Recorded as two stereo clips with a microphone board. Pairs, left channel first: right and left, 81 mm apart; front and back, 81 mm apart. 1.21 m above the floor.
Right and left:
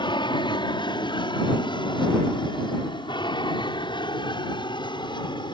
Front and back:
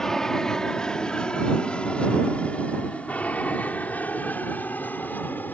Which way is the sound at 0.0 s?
85° right.